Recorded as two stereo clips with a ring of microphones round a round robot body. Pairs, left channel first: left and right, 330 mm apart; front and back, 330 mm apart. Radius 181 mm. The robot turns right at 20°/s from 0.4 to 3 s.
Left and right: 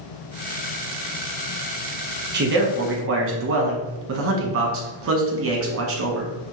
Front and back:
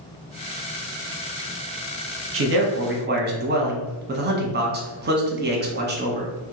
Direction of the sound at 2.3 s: 140° right.